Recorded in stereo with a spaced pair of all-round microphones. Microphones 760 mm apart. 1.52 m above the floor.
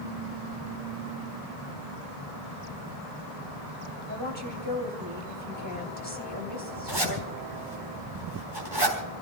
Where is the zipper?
35° right (ahead or behind), 4 m.